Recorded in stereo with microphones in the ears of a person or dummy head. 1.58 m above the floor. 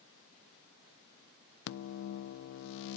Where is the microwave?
60° left (ahead or behind), 0.5 m.